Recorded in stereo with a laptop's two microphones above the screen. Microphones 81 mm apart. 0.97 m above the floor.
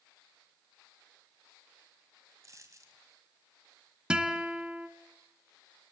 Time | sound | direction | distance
2.4 | a dropped coin | 40° right (ahead or behind) | 3 m
4.1 | a guitar | 10° right (ahead or behind) | 1.7 m